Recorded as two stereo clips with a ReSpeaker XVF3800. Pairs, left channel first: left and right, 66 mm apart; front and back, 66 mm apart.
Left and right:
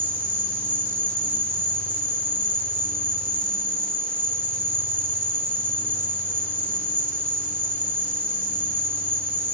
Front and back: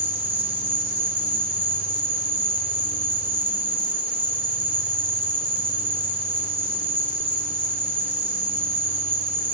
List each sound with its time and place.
0.0 s an insect: 130° right, 0.8 m